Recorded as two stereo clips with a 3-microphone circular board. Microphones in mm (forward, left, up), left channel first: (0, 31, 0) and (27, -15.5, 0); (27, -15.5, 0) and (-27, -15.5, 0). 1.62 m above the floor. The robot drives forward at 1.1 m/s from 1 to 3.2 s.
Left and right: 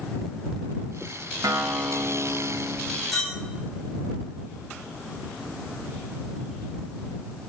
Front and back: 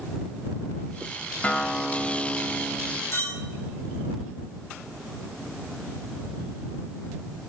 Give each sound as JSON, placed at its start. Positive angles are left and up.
{"t": 1.4, "sound": "a guitar", "azimuth_deg": -65, "distance_m": 1.5}
{"t": 3.1, "sound": "a clink", "azimuth_deg": 25, "distance_m": 9.0}